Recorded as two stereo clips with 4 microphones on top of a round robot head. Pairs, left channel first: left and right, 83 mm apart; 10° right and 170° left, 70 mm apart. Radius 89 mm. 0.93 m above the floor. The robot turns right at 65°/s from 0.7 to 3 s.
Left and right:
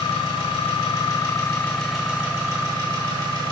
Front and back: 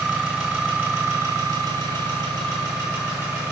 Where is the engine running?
95° left, 0.9 m; by 3.5 s 115° right, 0.9 m.